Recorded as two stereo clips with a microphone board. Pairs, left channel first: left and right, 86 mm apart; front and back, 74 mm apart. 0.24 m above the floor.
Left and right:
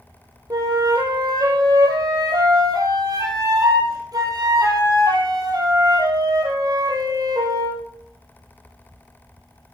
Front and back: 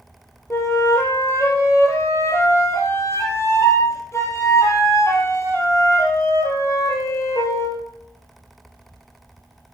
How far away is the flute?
About 3 m.